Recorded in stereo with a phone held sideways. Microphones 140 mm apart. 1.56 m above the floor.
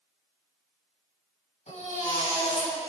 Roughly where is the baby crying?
Left.